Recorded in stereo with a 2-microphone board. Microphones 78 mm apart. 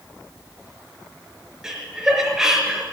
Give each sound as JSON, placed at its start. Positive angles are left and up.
{"t": 1.6, "sound": "laughter", "side_deg": -5, "distance_m": 4.0}